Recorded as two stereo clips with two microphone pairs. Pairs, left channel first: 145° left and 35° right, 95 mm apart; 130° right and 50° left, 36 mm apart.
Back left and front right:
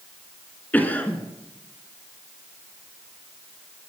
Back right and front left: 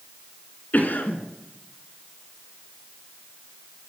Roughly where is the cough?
Behind right.